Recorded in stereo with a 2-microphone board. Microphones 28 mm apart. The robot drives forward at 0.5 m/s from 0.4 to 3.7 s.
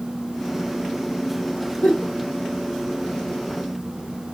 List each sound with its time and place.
1.8 s a giggle: 75° left (ahead or behind), 3.5 m; by 2.1 s 70° left (ahead or behind), 3.5 m